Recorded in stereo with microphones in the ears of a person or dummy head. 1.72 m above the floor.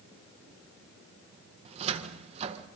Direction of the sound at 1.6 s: 40° right (ahead or behind).